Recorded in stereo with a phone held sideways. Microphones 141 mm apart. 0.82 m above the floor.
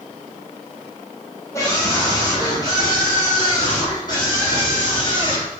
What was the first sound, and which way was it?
A scream, 20° left (ahead or behind).